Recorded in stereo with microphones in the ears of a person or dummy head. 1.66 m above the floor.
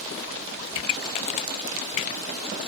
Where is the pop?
40° left (ahead or behind).